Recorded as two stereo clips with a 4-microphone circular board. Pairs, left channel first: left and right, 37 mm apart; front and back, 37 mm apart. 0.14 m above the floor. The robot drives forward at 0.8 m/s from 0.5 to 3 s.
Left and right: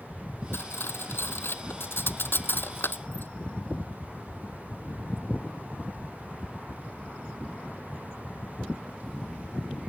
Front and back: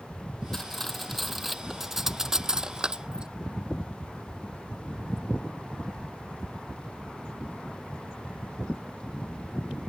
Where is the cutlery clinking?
80° left; by 3.3 s 110° left.